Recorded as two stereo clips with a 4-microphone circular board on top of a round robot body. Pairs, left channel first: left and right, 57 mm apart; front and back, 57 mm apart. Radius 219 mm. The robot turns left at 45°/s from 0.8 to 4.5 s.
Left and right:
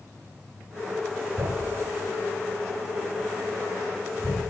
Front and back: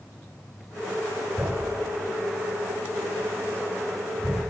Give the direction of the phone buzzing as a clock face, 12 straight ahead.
I don't hear a phone buzzing.